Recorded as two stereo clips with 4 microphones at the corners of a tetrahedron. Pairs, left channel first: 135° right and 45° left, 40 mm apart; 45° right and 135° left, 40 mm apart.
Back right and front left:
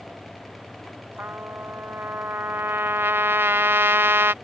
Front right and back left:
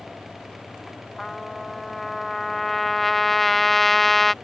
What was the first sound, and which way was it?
A trumpet, 40° left.